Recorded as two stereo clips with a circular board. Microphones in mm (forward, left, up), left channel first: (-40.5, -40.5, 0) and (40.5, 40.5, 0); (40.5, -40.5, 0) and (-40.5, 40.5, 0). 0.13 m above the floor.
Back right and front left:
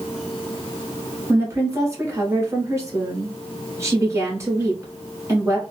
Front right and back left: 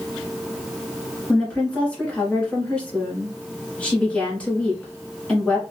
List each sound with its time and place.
1.3 s a woman speaking: 25° left, 1.5 m